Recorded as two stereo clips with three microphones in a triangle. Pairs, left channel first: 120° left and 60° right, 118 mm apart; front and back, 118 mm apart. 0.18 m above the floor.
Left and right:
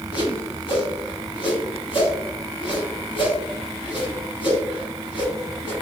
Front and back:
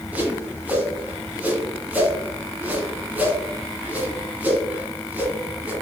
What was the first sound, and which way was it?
A whoosh, 110° left.